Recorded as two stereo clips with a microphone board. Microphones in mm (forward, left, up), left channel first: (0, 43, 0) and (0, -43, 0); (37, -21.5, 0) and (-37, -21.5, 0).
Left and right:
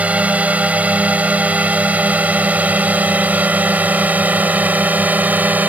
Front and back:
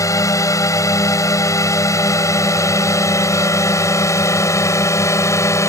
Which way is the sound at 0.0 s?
20° right.